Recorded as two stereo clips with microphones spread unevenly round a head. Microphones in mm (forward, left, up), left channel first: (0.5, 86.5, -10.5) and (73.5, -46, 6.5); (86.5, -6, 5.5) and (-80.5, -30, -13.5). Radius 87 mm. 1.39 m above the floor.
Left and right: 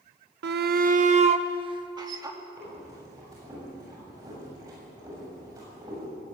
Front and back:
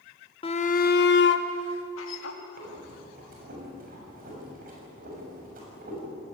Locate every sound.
0.4 s a shout: 50° right, 1.3 m; by 2.4 s 5° left, 3 m
2.6 s breathing: 135° right, 7 m